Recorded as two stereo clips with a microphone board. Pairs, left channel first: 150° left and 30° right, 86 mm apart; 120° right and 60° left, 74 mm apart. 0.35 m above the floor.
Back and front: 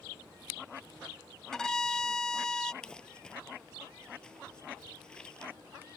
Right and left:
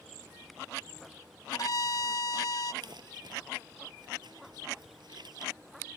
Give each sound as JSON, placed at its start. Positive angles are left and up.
{"t": 1.5, "sound": "a violin", "azimuth_deg": -130}
{"t": 2.8, "sound": "crumpling", "azimuth_deg": 70}